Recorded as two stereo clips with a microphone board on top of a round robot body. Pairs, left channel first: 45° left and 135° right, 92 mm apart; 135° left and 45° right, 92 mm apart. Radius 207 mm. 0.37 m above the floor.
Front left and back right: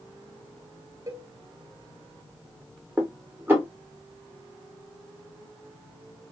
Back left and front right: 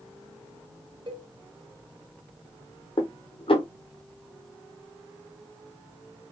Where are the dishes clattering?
155° left, 1.4 m.